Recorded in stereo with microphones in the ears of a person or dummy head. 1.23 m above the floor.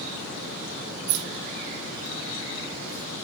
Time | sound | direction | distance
1.1 | keys jangling | 65° right (ahead or behind) | 1.0 m